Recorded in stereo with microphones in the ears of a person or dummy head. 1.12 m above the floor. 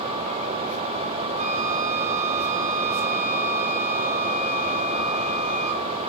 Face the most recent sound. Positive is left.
turn(degrees=-45)  # may be behind; listen again after turning